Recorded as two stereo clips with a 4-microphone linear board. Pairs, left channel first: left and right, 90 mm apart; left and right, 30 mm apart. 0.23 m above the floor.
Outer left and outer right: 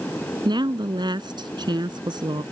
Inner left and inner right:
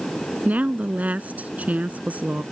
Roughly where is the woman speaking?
Right.